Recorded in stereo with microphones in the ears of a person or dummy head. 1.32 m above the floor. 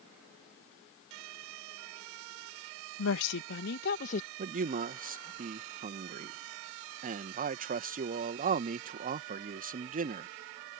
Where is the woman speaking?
70° left (ahead or behind); by 4.3 s 40° left (ahead or behind).